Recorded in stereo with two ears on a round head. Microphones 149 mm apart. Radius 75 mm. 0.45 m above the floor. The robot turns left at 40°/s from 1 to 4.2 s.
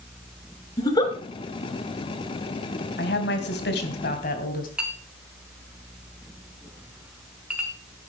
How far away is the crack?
I don't hear a crack.